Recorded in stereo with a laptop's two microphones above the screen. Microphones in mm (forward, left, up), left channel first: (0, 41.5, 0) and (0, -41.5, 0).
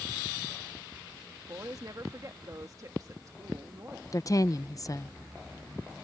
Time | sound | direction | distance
1.5 | a woman speaking | 45° right (ahead or behind) | ?
4.1 | a woman speaking | 45° left (ahead or behind) | ?